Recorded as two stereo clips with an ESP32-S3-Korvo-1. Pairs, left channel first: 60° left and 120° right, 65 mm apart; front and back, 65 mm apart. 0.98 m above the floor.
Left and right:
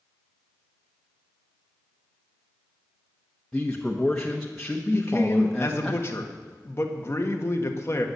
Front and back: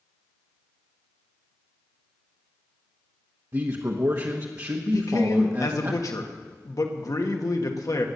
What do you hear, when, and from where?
3.5 s a man speaking: 140° left, 1.2 m
4.9 s a man speaking: 15° left, 1.7 m